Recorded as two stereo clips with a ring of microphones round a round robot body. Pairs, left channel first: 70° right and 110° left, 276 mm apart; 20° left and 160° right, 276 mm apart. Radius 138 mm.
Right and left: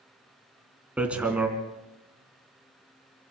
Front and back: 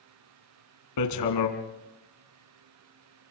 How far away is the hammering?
About 2.5 m.